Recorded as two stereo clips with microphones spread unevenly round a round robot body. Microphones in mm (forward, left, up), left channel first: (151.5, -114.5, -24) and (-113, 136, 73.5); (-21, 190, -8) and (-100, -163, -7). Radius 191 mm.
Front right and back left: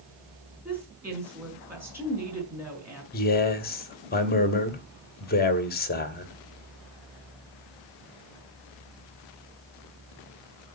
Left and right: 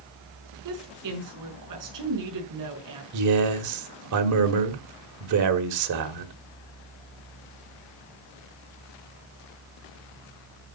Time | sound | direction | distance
0.7 | a woman speaking | 135° right | 5.5 m
3.1 | a man speaking | 80° right | 1.6 m